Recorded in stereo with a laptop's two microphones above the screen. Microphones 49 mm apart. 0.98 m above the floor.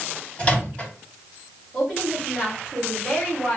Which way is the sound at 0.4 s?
20° left (ahead or behind).